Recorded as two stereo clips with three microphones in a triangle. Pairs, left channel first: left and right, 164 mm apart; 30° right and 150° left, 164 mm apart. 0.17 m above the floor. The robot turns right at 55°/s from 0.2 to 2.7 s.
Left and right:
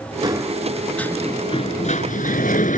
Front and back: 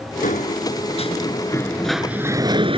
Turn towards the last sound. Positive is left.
turn(degrees=105)